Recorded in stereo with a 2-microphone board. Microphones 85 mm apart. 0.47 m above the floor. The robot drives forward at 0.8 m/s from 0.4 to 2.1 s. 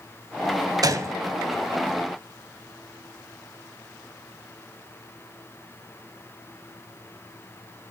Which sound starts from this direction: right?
A gunshot, at 0.8 s.